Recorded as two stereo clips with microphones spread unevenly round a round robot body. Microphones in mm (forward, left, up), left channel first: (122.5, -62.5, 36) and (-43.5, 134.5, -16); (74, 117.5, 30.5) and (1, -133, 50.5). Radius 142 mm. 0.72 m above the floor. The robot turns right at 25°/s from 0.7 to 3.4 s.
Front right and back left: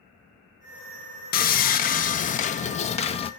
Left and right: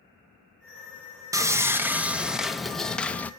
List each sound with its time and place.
1.3 s sawing: 35° right, 0.8 m; by 3.3 s 10° left, 0.8 m